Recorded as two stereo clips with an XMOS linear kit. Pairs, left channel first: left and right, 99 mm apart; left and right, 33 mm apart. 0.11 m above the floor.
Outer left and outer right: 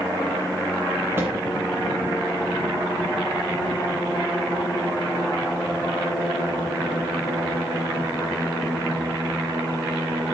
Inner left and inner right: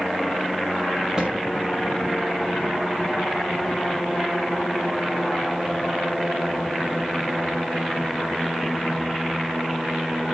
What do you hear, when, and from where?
1.2 s a thud: 25° right (ahead or behind), 3 m